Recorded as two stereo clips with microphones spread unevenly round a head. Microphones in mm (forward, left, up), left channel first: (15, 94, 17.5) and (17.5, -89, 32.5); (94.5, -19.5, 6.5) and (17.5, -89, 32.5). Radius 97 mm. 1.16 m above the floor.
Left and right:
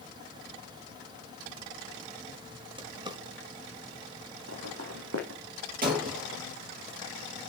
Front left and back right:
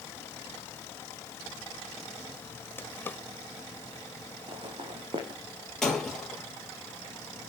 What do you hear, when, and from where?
2.8 s a drawer: 35° right, 1.2 m
4.5 s footsteps: 105° right, 4 m
5.8 s breaking glass: 45° right, 6 m